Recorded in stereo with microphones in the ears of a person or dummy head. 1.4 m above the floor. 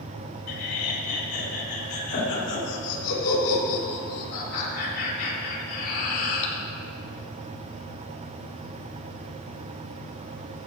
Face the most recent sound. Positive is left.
turn(degrees=50)  # may be behind; listen again after turning